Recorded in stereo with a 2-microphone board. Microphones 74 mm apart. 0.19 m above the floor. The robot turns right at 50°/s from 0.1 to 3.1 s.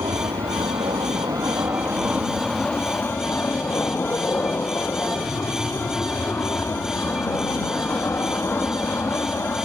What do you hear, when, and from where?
0.0 s an aircraft: 60° right (ahead or behind); by 9.7 s 35° left (ahead or behind)